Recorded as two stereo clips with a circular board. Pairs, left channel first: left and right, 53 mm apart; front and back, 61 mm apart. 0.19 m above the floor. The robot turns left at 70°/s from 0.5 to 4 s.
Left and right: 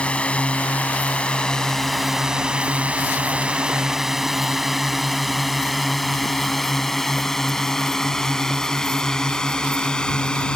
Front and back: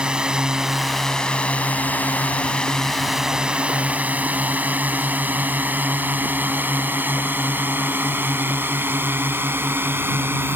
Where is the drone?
125° left; by 10.6 s 155° left.